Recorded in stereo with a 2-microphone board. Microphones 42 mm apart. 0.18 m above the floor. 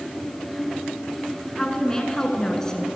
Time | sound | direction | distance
1.6 | a woman speaking | 15° left (ahead or behind) | 1.8 m